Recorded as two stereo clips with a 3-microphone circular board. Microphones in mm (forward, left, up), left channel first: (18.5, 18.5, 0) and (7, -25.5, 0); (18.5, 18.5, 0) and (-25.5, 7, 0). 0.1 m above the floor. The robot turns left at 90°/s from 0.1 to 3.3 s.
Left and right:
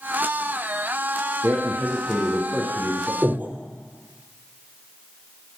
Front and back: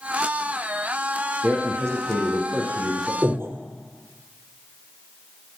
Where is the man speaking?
120° right, 4.5 m; by 3.1 s 90° left, 4.5 m.